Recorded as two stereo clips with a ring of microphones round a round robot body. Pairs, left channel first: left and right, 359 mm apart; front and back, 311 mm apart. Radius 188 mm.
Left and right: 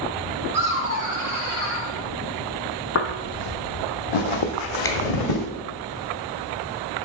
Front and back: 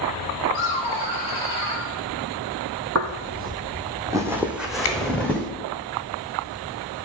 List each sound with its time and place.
0.5 s laughter: 100° right, 2 m; by 1.9 s 140° right, 2.0 m
3.0 s footsteps: 140° left, 0.6 m; by 5.5 s 85° left, 1.5 m
4.8 s a finger snap: 10° left, 0.9 m